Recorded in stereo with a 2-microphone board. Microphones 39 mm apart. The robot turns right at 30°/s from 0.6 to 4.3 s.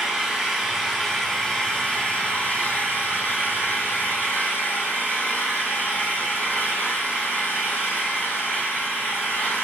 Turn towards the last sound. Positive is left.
turn(degrees=90)